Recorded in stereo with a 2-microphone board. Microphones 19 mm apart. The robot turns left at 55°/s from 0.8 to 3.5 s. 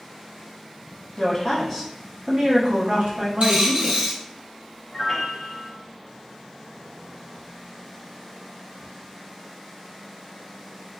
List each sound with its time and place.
1.2 s a woman speaking: 35° left, 1.6 m; by 4.2 s 90° right, 1.6 m
3.4 s a dropped coin: 65° right (ahead or behind), 1.9 m
4.9 s a piano: 20° left (ahead or behind), 0.8 m